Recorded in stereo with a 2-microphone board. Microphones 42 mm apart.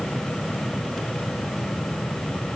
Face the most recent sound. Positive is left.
No sound to turn to.